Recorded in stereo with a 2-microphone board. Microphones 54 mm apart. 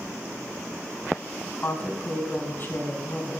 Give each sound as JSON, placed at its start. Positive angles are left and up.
{"t": 1.6, "sound": "a woman speaking", "side_deg": 40, "distance_m": 3.0}